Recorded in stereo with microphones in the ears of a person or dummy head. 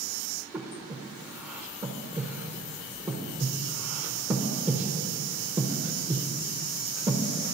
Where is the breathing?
10° right (ahead or behind), 0.7 m.